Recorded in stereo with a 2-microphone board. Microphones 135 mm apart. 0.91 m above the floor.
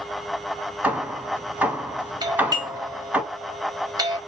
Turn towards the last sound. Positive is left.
turn(degrees=-30)  # may be behind; listen again after turning